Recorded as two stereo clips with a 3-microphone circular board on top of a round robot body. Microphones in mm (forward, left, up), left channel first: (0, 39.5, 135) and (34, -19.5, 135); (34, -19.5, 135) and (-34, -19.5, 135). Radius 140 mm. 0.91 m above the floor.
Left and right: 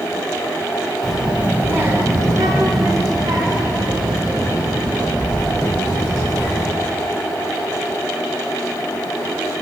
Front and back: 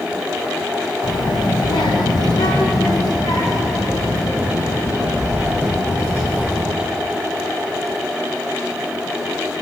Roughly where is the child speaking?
Ahead left.